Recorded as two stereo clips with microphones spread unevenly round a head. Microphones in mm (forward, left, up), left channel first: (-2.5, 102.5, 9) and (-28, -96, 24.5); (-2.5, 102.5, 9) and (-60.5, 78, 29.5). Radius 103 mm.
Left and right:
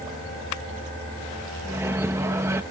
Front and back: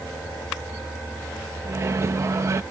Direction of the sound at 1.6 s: 170° right.